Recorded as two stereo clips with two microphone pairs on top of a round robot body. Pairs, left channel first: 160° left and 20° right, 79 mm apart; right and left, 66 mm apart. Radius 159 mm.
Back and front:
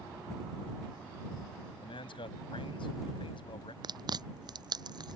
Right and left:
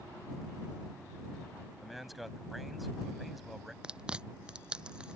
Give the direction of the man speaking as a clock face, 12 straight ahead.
6 o'clock.